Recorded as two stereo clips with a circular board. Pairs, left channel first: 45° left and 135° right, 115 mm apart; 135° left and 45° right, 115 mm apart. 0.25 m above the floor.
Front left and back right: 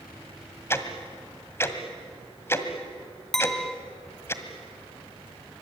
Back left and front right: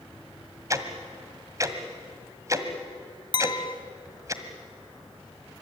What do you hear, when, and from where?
0.7 s ticking: 5° right, 1.7 m
3.3 s a clink: 130° left, 0.7 m